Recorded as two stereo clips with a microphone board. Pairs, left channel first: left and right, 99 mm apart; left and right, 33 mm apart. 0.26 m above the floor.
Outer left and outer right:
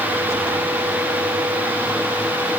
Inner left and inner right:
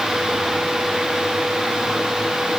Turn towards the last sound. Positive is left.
No sound to turn to.